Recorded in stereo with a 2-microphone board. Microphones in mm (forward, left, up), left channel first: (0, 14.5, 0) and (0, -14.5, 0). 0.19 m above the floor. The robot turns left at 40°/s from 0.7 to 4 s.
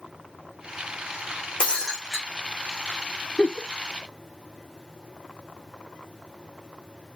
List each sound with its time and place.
1.6 s breaking glass: 40° left (ahead or behind), 4 m; by 2.2 s 10° left (ahead or behind), 4 m
3.4 s a giggle: 30° left (ahead or behind), 0.8 m; by 3.7 s 25° left (ahead or behind), 0.8 m